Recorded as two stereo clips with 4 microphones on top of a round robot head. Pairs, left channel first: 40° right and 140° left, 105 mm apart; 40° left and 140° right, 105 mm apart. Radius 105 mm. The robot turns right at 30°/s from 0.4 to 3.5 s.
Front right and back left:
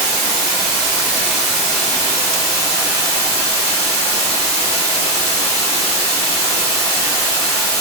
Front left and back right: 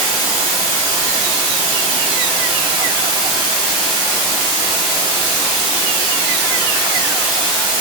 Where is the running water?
165° right, 1.5 m; by 7.8 s 75° right, 1.5 m.